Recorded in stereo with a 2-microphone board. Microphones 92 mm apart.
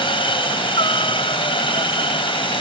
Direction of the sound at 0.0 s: 65° left (ahead or behind).